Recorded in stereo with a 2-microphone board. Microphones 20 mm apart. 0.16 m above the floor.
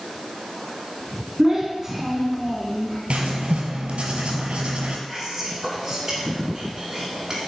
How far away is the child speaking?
About 0.9 m.